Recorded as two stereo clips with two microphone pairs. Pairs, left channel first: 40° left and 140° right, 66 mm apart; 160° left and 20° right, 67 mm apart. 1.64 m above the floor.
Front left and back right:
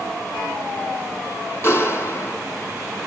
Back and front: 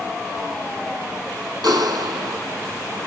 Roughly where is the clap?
Ahead.